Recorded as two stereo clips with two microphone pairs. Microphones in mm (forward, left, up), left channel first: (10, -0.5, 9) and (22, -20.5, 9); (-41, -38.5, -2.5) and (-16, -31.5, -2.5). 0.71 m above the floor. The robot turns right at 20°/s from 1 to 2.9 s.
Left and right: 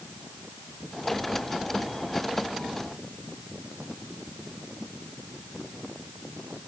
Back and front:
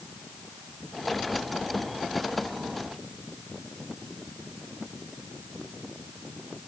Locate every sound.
Only background noise.